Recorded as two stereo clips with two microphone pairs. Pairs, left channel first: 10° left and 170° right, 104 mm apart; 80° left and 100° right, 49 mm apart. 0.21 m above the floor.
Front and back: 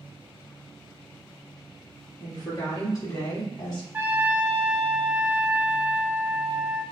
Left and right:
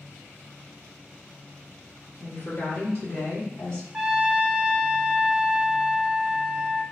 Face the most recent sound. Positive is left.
turn(degrees=-140)